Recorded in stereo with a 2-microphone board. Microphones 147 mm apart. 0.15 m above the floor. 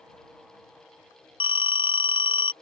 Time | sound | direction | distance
1.4 | a phone ringing | 40° left (ahead or behind) | ?